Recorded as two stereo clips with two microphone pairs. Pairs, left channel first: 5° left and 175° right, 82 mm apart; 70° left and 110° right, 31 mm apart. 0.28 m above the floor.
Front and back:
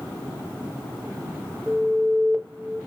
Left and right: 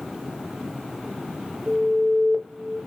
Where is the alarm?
75° right, 1.5 m.